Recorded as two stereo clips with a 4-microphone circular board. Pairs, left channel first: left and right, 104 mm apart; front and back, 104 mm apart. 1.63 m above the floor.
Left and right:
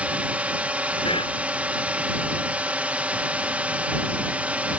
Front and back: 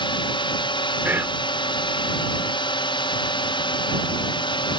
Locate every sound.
0.0 s a drone: 15° right
1.1 s whispering: 110° left